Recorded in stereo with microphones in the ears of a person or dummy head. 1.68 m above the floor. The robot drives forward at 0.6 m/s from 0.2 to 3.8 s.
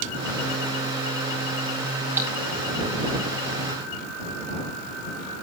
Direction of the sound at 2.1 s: 10° right (ahead or behind).